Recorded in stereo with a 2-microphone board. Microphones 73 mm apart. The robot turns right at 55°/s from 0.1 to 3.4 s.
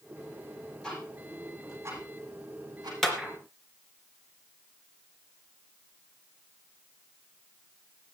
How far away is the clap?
About 3 m.